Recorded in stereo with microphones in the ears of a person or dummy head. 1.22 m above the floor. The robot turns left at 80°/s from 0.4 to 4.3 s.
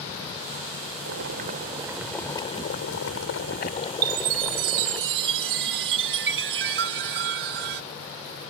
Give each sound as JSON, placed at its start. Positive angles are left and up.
{"t": 1.1, "sound": "boiling", "azimuth_deg": -100}
{"t": 4.0, "sound": "a chime", "side_deg": -50}